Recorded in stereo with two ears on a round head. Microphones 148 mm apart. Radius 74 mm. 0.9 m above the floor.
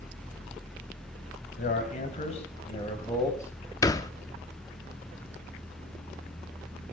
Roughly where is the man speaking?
Left.